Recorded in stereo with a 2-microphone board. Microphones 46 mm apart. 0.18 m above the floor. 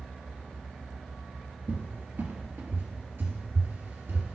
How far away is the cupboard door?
About 1.2 m.